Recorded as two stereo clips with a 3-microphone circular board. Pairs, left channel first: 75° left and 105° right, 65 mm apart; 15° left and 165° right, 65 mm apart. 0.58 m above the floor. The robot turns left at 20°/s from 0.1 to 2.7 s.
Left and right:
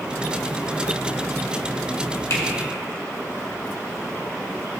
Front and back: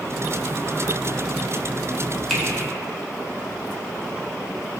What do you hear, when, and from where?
2.3 s a finger snap: 100° left, 2 m